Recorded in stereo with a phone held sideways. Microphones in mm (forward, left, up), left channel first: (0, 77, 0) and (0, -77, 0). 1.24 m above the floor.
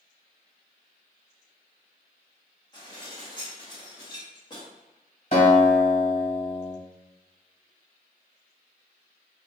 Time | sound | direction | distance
2.7 | dishes clattering | 30° left (ahead or behind) | 1.3 m
5.3 | a guitar | 50° left (ahead or behind) | 1.9 m